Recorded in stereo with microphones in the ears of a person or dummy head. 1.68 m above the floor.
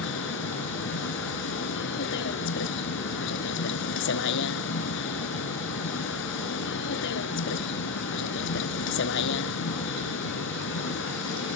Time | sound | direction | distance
0.0 | a vehicle | 75° left (ahead or behind) | ?